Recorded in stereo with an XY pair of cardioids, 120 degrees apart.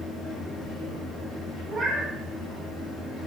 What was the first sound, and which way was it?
A fan, 70° left.